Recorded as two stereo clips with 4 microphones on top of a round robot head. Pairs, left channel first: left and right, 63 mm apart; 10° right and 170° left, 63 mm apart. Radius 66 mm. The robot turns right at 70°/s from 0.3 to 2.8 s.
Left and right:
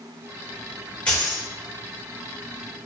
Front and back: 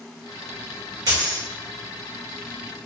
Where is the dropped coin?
160° left, 1.6 m; by 1.5 s 175° right, 1.6 m.